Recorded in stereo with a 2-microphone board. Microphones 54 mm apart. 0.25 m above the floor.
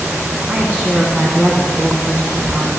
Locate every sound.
0.5 s a woman speaking: 25° right (ahead or behind), 2.5 m